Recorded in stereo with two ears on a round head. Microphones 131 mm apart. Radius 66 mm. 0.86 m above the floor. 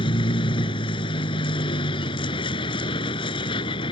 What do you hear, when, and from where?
0.0 s a vehicle: 35° left (ahead or behind)